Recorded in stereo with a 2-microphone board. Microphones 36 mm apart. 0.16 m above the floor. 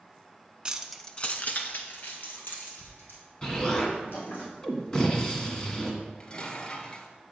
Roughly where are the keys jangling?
Right.